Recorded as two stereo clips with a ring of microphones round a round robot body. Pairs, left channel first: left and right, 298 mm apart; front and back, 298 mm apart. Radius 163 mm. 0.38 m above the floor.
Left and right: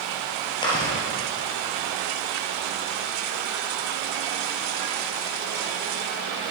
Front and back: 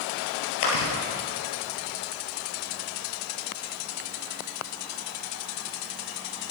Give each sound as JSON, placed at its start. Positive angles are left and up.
{"t": 0.6, "sound": "chewing", "azimuth_deg": 15, "distance_m": 3.0}